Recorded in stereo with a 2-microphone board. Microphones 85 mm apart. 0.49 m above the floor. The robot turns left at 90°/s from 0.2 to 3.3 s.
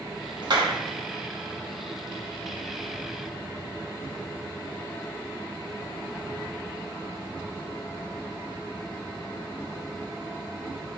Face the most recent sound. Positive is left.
turn(degrees=40)